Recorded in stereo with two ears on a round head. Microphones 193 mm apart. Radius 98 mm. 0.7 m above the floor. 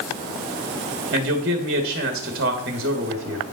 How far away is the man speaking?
About 1.2 m.